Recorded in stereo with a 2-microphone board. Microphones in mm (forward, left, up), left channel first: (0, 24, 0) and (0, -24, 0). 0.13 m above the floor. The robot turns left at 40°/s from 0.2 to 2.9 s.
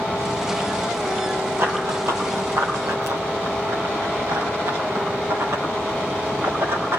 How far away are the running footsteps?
About 2.5 m.